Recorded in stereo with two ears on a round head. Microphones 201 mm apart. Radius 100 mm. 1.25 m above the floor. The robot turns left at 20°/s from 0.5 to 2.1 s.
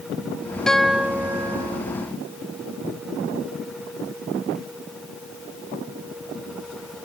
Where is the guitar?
5° left (ahead or behind); by 1.8 s 20° right (ahead or behind).